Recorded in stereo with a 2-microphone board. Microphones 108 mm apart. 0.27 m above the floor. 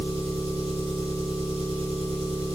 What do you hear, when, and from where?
0.0 s an engine running: 75° right (ahead or behind), 1.4 m